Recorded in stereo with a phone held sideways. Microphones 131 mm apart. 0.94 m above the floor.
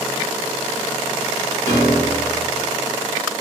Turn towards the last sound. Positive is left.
turn(degrees=-75)  # may be behind; listen again after turning